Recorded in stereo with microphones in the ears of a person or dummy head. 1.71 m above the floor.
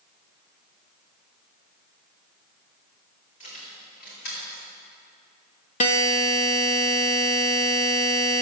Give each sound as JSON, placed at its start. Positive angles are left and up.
{"t": 3.4, "sound": "keys jangling", "side_deg": 40, "distance_m": 2.0}
{"t": 5.8, "sound": "a buzzer", "side_deg": 40, "distance_m": 0.7}